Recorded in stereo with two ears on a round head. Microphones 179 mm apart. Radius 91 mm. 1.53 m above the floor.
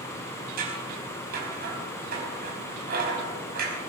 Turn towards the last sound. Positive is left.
turn(degrees=-45)  # may be behind; listen again after turning